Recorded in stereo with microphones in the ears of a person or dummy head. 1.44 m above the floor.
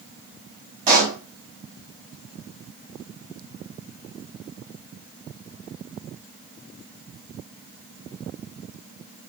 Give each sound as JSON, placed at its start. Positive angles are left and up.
{"t": 0.9, "sound": "a pop", "side_deg": -45, "distance_m": 2.5}